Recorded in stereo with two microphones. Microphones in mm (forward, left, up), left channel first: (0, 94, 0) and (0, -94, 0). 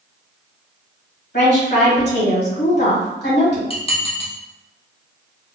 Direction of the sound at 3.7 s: 30° left (ahead or behind).